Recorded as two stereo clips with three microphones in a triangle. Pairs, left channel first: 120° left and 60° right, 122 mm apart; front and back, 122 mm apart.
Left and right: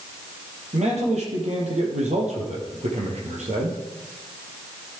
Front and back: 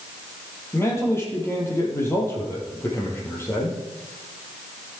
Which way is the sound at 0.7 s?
70° right.